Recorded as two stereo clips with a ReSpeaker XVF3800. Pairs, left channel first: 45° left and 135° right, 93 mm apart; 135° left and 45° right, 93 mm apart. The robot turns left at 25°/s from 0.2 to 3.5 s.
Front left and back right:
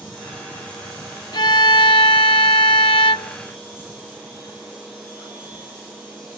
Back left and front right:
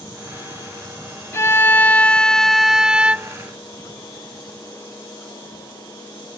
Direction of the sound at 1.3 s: 75° left.